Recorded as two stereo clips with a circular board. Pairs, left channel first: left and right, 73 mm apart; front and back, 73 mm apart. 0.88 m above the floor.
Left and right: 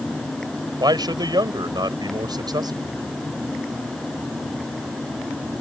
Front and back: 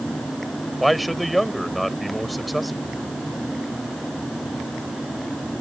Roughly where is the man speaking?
Right.